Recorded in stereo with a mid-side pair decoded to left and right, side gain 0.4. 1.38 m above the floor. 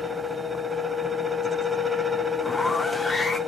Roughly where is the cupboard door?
I don't hear a cupboard door.